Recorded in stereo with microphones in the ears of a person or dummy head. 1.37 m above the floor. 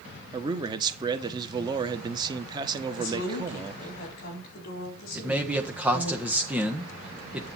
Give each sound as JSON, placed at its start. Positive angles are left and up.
{"t": 0.3, "sound": "a man speaking", "side_deg": -20, "distance_m": 1.0}
{"t": 3.0, "sound": "a woman speaking", "side_deg": 45, "distance_m": 4.0}
{"t": 5.2, "sound": "a man speaking", "side_deg": -10, "distance_m": 1.4}